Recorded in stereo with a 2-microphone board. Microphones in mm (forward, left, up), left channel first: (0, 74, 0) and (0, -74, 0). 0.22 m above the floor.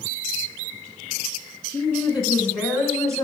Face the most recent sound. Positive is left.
turn(degrees=-25)  # may be behind; listen again after turning